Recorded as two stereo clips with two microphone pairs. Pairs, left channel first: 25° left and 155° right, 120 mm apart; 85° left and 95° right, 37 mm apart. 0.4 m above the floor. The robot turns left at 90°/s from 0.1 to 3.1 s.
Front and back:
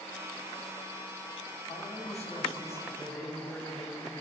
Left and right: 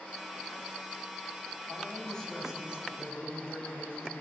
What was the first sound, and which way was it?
A man speaking, 60° left.